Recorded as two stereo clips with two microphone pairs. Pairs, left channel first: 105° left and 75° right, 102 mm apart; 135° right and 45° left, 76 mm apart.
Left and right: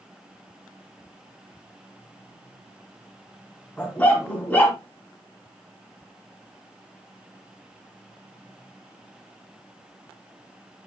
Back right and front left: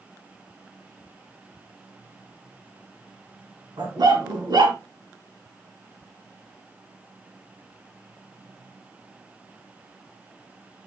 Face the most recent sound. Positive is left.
turn(degrees=30)